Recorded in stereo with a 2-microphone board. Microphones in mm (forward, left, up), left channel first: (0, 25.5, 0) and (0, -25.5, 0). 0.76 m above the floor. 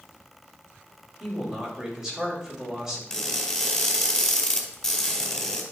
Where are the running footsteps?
No running footsteps in this recording.